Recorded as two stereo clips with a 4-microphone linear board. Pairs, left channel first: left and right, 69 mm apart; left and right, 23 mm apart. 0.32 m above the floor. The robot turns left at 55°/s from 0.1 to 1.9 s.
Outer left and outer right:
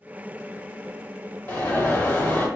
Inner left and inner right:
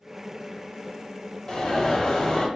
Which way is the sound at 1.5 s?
25° left (ahead or behind).